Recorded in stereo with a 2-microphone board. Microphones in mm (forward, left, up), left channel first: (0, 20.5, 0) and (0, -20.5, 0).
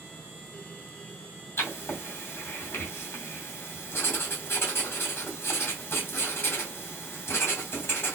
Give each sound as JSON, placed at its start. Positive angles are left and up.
{"t": 1.6, "sound": "writing", "side_deg": 65, "distance_m": 2.0}